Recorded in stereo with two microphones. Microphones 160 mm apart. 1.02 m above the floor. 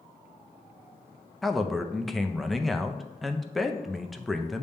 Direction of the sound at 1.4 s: Centre (ahead or behind).